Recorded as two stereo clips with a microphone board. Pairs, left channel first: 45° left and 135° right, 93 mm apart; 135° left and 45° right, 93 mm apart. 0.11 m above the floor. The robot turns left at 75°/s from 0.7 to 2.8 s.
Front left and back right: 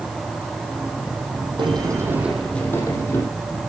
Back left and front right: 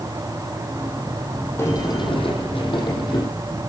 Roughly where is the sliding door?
Behind.